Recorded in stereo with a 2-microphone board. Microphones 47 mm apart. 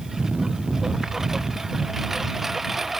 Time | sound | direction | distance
0.0 | a lawn mower | 10° right (ahead or behind) | ?